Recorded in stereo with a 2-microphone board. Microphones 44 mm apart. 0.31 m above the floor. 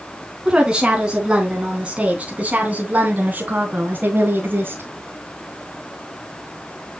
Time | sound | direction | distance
0.5 | a woman speaking | 15° right (ahead or behind) | 3.5 m